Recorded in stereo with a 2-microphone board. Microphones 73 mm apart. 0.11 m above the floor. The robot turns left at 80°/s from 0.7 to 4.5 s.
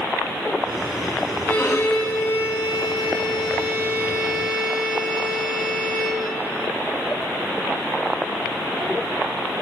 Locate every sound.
1.5 s a violin: 165° left, 3 m; by 6.3 s 80° right, 3 m